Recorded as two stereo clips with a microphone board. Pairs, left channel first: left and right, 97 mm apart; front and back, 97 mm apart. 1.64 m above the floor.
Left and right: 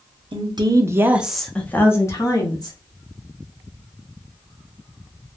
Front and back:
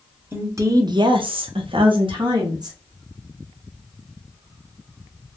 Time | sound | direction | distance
0.3 | a woman speaking | 115° right | 0.6 m